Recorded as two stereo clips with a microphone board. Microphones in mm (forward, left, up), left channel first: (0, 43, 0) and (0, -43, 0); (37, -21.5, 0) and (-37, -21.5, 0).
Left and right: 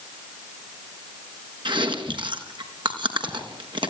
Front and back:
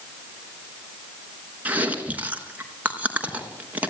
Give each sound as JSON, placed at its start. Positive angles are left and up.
{"t": 1.6, "sound": "chewing", "azimuth_deg": -110, "distance_m": 3.5}